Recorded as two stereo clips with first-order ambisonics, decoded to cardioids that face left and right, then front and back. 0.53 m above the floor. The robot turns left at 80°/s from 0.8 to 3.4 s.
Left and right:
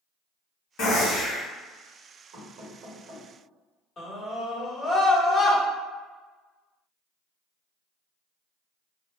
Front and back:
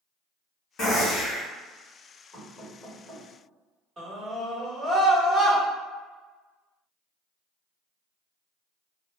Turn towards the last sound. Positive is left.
turn(degrees=145)